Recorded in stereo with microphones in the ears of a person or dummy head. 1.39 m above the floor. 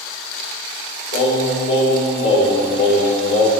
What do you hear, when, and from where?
1.1 s singing: 70° left (ahead or behind), 1.9 m